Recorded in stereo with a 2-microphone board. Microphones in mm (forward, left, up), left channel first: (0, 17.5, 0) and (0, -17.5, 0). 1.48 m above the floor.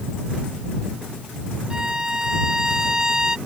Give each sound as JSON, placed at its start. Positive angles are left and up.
{"t": 1.7, "sound": "a violin", "side_deg": -20}